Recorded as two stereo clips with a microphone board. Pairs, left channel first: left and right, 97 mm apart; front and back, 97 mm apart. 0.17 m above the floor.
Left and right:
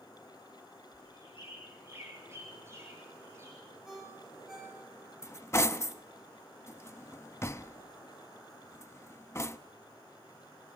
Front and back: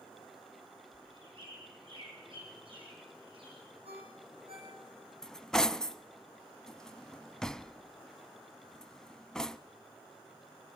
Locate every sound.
0.9 s a bird: 150° right, 5 m
3.9 s a ringtone: 175° right, 7.5 m
5.2 s cutlery clinking: 75° left, 0.6 m